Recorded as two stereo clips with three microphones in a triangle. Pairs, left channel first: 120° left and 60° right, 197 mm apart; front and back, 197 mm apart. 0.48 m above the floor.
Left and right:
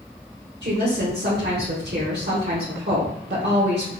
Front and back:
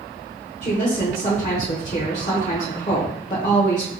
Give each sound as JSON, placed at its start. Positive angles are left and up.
{"t": 0.6, "sound": "a woman speaking", "azimuth_deg": -45, "distance_m": 1.1}